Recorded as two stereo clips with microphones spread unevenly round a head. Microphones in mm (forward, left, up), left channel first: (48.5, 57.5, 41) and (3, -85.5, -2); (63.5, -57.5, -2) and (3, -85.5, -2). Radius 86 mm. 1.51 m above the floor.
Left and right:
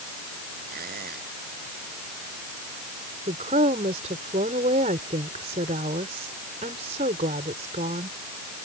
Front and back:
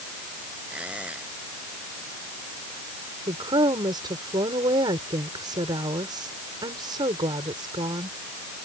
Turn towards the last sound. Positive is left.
turn(degrees=-165)